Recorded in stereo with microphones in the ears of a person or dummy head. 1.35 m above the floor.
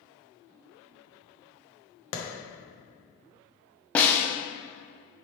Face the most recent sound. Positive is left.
turn(degrees=10)  # may be behind; listen again after turning